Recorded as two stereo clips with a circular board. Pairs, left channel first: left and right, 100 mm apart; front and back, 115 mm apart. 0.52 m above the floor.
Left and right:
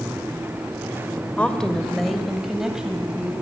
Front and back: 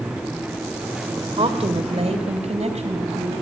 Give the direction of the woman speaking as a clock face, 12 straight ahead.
7 o'clock.